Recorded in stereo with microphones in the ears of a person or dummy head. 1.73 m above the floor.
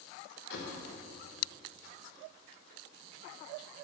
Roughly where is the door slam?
Left.